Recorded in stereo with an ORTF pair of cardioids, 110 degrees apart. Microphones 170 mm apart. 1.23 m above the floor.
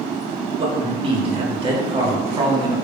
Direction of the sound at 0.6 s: 30° right.